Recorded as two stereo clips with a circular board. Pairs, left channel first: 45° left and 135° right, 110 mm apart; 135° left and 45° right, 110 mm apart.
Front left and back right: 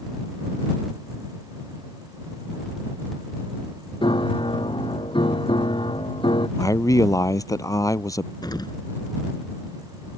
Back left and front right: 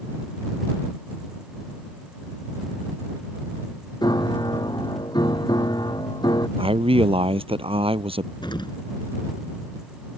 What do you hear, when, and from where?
4.0 s a piano: 85° left
6.6 s a man speaking: 15° right
8.4 s an explosion: 90° left